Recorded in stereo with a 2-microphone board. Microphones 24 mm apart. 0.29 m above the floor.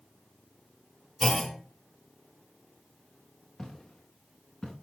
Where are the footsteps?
20° left (ahead or behind), 3 m; by 4.7 s 30° left (ahead or behind), 3.5 m.